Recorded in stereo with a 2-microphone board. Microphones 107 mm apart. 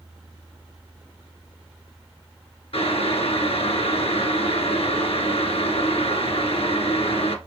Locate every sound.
2.7 s boiling: 65° left (ahead or behind), 1.0 m